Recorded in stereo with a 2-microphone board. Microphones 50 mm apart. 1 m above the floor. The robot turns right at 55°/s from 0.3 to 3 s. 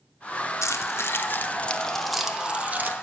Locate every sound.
0.6 s keys jangling: 80° left, 0.7 m; by 2.9 s 40° right (ahead or behind), 0.7 m